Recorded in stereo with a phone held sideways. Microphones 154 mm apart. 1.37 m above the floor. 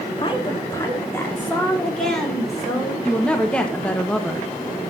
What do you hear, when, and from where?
0.2 s a woman speaking: 35° left (ahead or behind), 3 m; by 3.0 s 5° right (ahead or behind), 5.5 m
3.0 s a woman speaking: 5° left (ahead or behind), 1.5 m